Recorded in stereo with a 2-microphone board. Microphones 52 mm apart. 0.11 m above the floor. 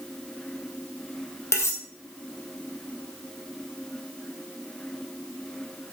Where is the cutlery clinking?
55° left (ahead or behind), 2.5 m.